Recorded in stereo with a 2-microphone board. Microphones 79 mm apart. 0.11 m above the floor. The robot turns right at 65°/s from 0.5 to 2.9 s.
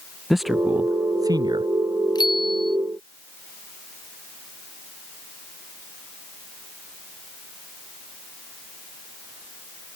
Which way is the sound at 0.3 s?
175° right.